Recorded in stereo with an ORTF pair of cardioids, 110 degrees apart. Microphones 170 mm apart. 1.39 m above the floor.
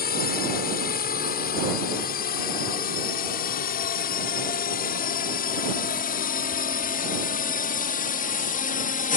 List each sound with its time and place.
0.0 s a drone: 65° left